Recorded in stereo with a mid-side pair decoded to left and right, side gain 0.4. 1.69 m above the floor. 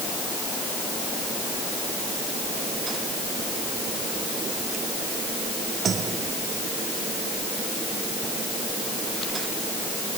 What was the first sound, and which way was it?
Only background noise.